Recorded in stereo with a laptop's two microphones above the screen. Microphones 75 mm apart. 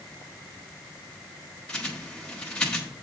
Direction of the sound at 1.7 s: 10° left (ahead or behind).